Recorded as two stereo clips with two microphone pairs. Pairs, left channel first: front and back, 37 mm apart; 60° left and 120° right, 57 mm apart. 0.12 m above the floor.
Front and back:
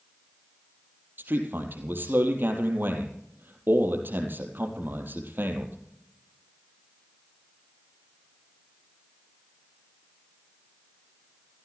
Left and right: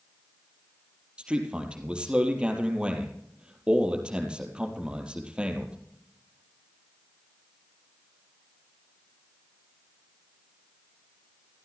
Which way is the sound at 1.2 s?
170° left.